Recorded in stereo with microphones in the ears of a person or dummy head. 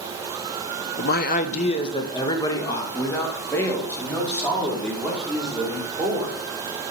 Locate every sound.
1.0 s a man speaking: 60° left (ahead or behind), 0.9 m; by 6.4 s 5° left (ahead or behind), 5.5 m